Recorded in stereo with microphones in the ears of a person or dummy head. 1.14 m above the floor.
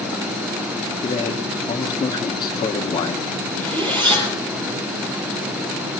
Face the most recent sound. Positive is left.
turn(degrees=-30)  # may be behind; listen again after turning